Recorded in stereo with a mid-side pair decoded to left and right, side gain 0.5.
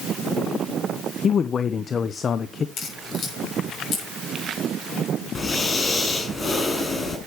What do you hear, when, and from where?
1.2 s a man speaking: 40° left, 0.8 m
2.8 s a crack: 55° left, 6.5 m
5.3 s breathing: 30° left, 4.5 m